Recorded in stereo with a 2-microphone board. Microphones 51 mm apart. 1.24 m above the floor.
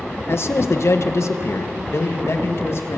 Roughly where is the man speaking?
Left.